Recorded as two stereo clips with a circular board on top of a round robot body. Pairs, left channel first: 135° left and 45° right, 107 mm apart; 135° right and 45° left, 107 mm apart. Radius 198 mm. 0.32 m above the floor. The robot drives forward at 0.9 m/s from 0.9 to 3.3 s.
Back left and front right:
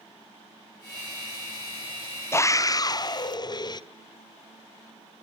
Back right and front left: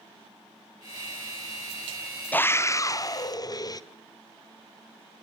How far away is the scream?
About 0.9 m.